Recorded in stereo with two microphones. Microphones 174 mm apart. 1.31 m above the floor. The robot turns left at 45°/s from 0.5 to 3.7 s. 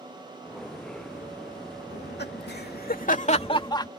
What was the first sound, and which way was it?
Laughter, 70° left (ahead or behind).